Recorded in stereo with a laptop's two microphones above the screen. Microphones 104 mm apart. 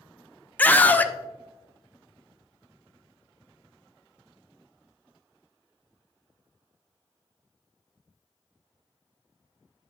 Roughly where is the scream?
Centre.